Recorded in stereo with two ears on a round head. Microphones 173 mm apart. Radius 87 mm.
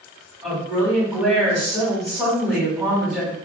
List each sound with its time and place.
0.4 s a woman speaking: 5° right (ahead or behind), 2.0 m